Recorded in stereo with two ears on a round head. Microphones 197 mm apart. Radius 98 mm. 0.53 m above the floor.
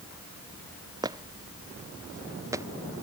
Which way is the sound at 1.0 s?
15° right (ahead or behind).